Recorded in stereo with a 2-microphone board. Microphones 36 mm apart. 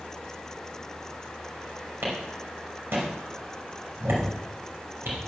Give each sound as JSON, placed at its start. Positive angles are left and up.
{"t": 2.0, "sound": "a clap", "side_deg": -70, "distance_m": 5.0}